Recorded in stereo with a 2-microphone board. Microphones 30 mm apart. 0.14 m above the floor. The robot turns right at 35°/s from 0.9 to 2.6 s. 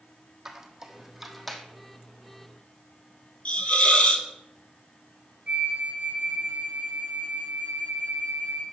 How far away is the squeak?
About 1.0 m.